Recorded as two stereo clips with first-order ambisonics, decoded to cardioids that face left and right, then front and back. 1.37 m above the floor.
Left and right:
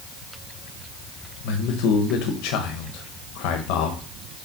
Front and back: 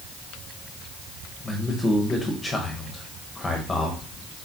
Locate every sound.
1.4 s a man speaking: 80° left, 1.1 m